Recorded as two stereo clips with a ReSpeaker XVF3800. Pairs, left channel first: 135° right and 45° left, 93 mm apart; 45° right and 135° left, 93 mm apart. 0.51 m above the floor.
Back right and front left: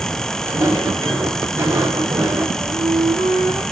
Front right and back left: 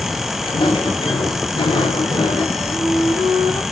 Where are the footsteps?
10° right, 7 m; by 2.4 s 20° right, 6.5 m.